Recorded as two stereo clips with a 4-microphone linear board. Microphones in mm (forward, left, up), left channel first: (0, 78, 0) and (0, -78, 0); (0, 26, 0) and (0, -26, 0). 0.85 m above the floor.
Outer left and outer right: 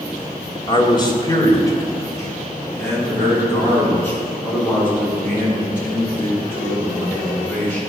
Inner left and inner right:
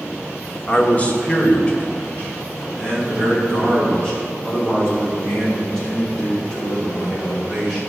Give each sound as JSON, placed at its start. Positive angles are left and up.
{"t": 0.7, "sound": "a man speaking", "side_deg": 35, "distance_m": 1.6}